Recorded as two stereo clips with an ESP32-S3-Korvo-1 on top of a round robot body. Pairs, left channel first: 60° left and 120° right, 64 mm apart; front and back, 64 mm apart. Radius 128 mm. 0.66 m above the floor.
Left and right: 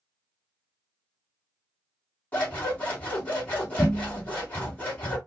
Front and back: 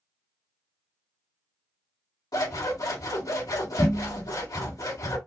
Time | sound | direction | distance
2.3 | scissors | 10° right | 2 m